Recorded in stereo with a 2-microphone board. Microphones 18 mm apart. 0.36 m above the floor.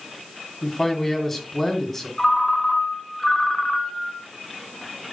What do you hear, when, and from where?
0.6 s a man speaking: 15° left (ahead or behind), 2.5 m
2.2 s a ringtone: 25° left (ahead or behind), 2 m